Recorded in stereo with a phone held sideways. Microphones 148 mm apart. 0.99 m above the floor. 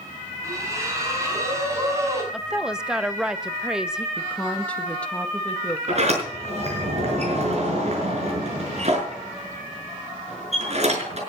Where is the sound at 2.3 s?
5° right (ahead or behind), 1.1 m.